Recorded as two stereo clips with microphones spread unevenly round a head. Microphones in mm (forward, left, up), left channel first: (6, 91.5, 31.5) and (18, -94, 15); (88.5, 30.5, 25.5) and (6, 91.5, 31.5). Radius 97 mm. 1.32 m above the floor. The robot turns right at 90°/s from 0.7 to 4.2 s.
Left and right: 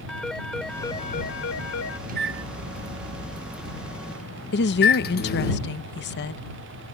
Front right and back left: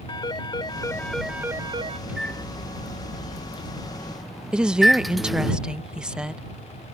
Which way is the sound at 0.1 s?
10° left.